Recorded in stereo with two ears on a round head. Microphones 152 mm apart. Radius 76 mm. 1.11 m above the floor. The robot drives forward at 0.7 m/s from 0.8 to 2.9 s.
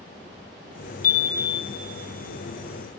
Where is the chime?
50° left (ahead or behind), 1.2 m; by 1.8 s 70° left (ahead or behind), 1.0 m.